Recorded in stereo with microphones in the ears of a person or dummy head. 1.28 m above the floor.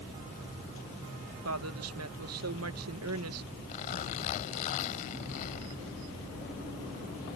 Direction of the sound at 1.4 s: 75° right (ahead or behind).